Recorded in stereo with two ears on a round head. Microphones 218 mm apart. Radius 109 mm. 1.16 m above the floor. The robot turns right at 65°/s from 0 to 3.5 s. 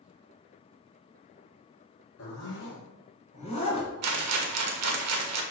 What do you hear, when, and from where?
2.2 s a zipper: 60° left (ahead or behind), 3 m; by 3.9 s 25° left (ahead or behind), 3 m
4.0 s a rattle: 70° right (ahead or behind), 1.3 m